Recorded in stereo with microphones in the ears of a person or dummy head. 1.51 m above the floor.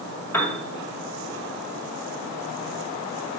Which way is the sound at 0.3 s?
10° left (ahead or behind).